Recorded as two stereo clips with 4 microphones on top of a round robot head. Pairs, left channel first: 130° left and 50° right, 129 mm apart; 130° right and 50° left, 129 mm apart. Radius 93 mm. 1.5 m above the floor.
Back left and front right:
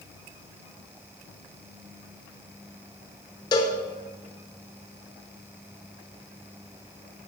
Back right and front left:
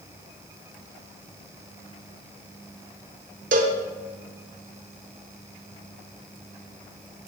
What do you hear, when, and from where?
3.5 s a cowbell: 75° left, 0.7 m